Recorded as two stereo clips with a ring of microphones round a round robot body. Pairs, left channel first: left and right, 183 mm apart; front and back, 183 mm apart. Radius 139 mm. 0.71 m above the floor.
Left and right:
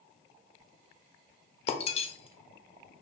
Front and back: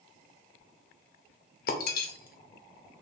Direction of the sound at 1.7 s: 35° left.